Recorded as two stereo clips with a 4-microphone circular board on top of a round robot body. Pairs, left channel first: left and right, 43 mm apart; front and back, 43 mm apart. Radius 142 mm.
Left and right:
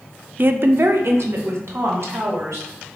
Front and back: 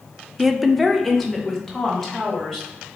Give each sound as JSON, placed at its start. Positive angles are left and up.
{"t": 0.4, "sound": "a woman speaking", "azimuth_deg": -100, "distance_m": 0.5}